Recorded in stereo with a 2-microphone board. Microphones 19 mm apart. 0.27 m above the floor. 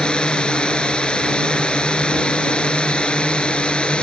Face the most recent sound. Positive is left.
turn(degrees=65)  # may be behind; listen again after turning